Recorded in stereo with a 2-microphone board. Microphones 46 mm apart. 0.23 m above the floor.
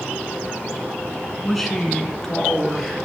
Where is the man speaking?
5° left (ahead or behind), 2 m.